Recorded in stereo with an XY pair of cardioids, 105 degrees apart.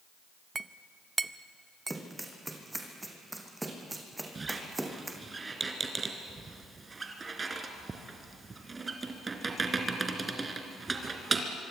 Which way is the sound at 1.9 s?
10° right.